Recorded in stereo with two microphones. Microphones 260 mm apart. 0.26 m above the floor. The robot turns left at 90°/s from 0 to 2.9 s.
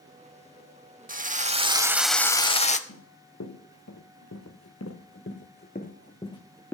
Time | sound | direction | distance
1.1 | a drill | 90° right | 0.6 m
2.9 | running footsteps | 80° left | 2 m